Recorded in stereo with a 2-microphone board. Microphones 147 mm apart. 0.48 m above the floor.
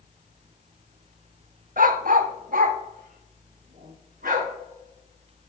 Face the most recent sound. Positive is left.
turn(degrees=-75)  # may be behind; listen again after turning